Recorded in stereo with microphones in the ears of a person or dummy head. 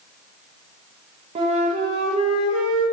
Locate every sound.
1.4 s a flute: 25° right (ahead or behind), 1.2 m